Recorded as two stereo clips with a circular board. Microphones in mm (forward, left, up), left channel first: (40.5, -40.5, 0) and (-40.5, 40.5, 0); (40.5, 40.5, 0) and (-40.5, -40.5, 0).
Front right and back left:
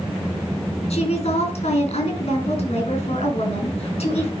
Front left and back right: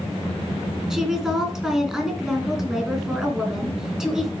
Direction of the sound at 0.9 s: 50° right.